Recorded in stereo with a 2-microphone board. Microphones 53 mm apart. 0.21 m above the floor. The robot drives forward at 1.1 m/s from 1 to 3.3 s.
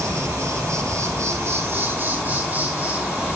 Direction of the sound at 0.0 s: 80° right.